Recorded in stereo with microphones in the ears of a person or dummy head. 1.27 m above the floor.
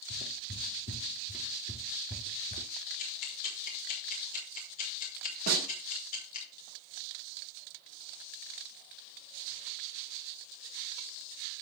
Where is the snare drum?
50° right (ahead or behind), 3.5 m.